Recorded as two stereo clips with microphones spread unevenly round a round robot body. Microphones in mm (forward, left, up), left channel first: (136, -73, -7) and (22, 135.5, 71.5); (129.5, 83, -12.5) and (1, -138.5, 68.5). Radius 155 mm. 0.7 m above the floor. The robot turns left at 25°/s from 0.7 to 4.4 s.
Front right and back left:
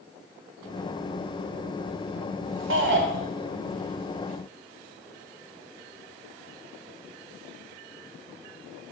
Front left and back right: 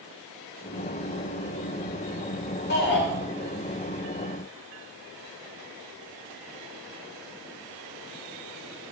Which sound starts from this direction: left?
A shout, at 2.7 s.